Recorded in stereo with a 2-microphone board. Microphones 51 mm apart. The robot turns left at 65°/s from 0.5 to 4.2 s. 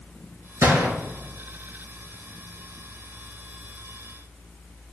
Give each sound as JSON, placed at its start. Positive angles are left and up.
{"t": 0.6, "sound": "a gunshot", "side_deg": -70, "distance_m": 2.0}